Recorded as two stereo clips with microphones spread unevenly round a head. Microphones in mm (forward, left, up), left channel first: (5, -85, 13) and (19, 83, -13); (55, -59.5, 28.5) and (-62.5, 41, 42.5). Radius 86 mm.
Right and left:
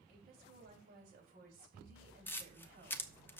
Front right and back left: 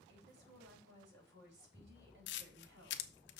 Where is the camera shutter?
20° right, 0.8 m.